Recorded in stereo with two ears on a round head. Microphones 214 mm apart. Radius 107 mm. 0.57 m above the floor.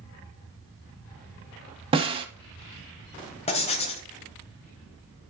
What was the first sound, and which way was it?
A snare drum, 25° right (ahead or behind).